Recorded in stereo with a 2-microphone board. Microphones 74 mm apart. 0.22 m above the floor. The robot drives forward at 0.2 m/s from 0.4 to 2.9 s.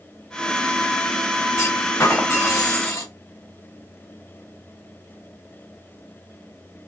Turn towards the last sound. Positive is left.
turn(degrees=45)  # may be behind; listen again after turning